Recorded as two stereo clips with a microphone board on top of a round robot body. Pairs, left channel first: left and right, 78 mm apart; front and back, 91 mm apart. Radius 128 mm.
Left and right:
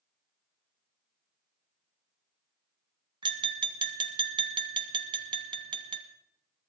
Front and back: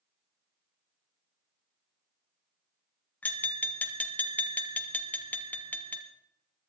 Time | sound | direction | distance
3.2 | tapping | 75° right | 1.4 m